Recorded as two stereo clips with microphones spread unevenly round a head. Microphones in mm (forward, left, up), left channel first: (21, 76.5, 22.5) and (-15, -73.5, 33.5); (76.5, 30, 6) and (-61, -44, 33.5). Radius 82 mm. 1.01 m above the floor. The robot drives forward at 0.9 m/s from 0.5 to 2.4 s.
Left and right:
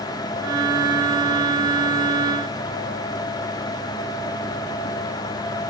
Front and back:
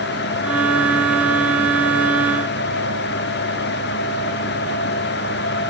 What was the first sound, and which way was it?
Only background noise.